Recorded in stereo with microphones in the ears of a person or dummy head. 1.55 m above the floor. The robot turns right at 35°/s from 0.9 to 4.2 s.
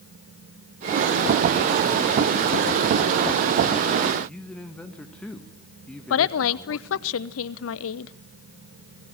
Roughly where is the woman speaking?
Left.